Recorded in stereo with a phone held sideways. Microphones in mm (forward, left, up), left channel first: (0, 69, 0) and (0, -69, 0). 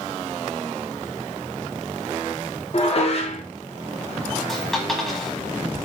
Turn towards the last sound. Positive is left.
turn(degrees=5)  # may be behind; listen again after turning